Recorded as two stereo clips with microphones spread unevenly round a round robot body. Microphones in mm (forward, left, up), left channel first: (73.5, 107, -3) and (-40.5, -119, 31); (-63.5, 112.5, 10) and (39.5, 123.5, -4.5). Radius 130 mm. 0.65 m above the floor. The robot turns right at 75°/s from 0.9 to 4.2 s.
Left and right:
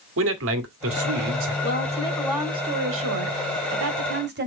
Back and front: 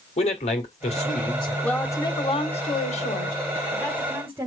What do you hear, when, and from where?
0.2 s a man speaking: 155° right, 1.8 m; by 1.5 s 110° right, 1.8 m
1.6 s a woman speaking: 100° left, 1.7 m; by 4.5 s 65° right, 1.7 m